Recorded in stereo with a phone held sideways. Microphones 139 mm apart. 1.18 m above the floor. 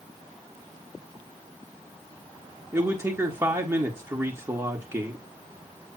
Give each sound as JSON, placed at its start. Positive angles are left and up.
{"t": 2.7, "sound": "a man speaking", "side_deg": -20, "distance_m": 1.7}